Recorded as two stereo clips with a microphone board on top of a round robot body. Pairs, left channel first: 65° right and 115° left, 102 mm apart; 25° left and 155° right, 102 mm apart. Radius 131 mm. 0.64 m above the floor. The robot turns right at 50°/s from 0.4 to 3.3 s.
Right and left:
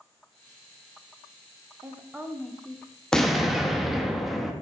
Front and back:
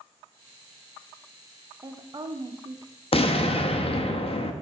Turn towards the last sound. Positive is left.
turn(degrees=25)